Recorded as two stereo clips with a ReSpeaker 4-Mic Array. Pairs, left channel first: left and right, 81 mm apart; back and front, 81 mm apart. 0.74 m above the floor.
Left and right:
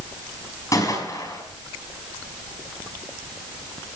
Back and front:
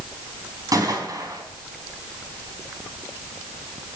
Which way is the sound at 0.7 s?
40° left.